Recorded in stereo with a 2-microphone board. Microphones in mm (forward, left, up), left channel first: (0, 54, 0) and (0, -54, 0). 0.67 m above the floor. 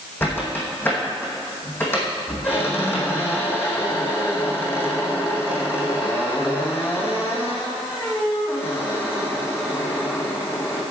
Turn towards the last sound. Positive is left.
turn(degrees=20)  # may be behind; listen again after turning